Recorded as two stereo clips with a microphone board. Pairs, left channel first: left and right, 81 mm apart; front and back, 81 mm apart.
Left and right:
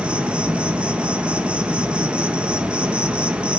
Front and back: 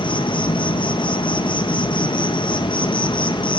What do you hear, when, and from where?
0.0 s an insect: 15° right, 0.8 m